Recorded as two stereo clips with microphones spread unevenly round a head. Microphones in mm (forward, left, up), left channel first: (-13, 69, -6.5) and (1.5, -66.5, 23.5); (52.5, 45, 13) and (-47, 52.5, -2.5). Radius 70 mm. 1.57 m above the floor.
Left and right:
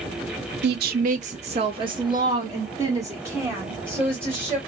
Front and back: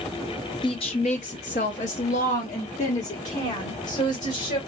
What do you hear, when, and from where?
0.6 s a woman speaking: 65° right, 0.5 m; by 4.6 s 5° right, 2.5 m